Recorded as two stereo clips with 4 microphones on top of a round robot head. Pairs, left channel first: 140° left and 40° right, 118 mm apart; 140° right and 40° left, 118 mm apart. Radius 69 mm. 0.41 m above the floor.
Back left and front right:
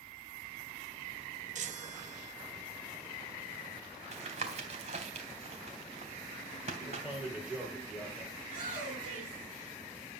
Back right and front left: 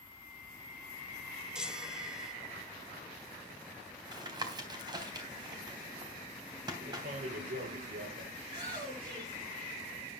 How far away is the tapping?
About 3.5 m.